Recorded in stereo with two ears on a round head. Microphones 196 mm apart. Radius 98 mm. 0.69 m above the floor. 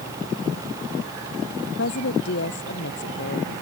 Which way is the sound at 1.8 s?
55° left (ahead or behind).